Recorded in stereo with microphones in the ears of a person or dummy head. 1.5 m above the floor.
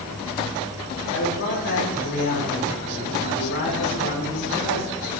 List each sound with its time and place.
1.1 s a man speaking: 65° left (ahead or behind), 7.5 m; by 5.0 s 50° left (ahead or behind), 9.5 m